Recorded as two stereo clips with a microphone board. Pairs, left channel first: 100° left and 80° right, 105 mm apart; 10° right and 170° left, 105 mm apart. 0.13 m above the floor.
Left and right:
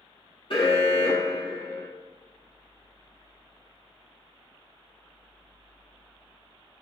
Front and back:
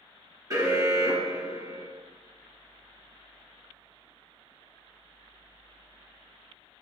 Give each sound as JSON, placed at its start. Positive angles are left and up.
{"t": 0.5, "sound": "an alarm", "azimuth_deg": 120, "distance_m": 1.8}